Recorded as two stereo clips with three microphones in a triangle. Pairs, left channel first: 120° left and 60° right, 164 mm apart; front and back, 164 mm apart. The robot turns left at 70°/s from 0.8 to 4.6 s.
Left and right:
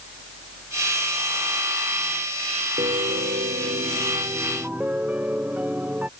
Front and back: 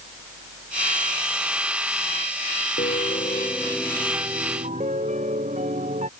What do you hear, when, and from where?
2.8 s a piano: 15° right; by 6.1 s 140° right